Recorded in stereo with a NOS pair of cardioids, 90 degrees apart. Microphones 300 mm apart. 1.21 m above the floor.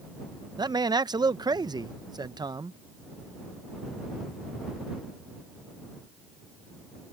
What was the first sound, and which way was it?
A man speaking, 15° right.